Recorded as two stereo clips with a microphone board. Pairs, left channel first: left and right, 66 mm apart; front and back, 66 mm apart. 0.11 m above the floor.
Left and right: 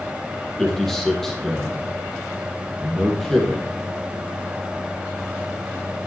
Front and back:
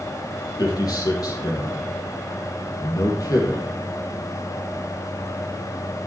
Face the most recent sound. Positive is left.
turn(degrees=5)